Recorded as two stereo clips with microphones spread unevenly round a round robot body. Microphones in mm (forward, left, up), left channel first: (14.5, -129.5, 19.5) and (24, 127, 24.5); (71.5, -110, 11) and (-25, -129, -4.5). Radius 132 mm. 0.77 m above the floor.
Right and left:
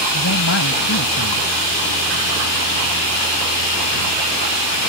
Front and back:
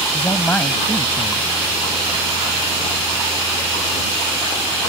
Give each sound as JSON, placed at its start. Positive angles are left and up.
{"t": 0.1, "sound": "a man speaking", "azimuth_deg": -55}